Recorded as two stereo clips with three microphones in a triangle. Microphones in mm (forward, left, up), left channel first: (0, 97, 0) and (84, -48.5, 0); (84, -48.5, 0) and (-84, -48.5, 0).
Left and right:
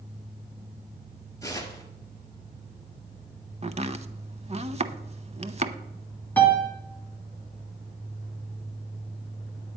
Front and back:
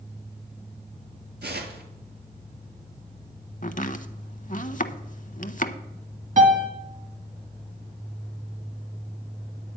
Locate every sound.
1.4 s tearing paper: 170° right, 1.6 m
3.6 s chopping: 20° right, 0.5 m
6.4 s a piano: 165° right, 1.8 m